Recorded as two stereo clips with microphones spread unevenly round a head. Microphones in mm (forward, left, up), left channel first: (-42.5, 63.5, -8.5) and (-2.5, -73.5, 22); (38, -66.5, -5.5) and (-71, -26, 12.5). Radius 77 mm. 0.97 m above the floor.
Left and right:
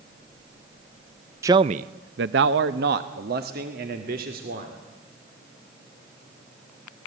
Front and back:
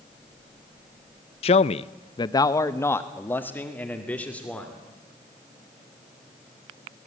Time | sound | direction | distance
1.4 | a man speaking | 5° left | 0.6 m